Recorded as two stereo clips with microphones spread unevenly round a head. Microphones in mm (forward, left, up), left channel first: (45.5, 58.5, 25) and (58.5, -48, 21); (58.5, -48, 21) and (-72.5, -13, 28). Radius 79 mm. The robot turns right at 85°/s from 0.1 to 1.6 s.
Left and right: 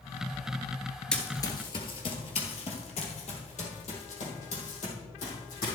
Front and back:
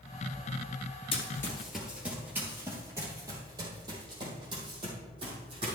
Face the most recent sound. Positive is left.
turn(degrees=105)